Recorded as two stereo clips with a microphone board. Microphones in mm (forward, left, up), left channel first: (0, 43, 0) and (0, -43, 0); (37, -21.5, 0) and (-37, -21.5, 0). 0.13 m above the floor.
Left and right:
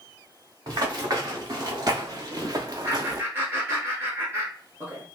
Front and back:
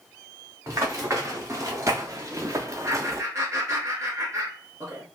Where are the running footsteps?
135° right, 2 m; by 3.2 s 130° right, 0.5 m.